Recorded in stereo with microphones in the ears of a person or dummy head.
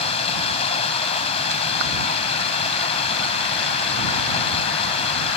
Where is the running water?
35° left (ahead or behind).